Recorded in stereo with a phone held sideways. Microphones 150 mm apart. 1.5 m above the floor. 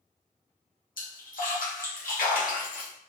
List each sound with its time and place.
1.0 s a splash: 75° left (ahead or behind), 0.9 m